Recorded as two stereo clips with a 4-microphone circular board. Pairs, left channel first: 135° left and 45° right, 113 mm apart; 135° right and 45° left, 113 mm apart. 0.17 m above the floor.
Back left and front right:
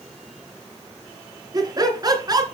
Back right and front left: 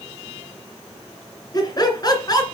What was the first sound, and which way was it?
Laughter, 90° right.